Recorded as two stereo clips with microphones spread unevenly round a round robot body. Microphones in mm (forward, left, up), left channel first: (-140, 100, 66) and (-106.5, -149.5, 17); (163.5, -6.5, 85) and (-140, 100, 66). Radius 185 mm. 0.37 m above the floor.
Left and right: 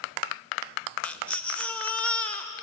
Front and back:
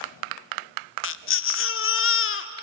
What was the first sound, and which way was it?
A baby crying, straight ahead.